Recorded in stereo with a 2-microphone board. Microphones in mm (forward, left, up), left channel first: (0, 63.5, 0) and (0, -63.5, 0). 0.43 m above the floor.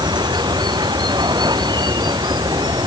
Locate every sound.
0.0 s running water: 35° right (ahead or behind)